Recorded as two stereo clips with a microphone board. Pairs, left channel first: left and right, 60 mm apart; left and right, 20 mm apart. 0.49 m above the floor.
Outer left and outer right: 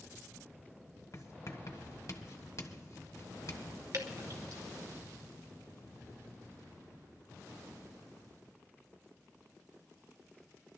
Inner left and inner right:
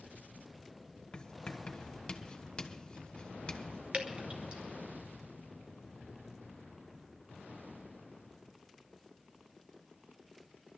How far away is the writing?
About 1.3 m.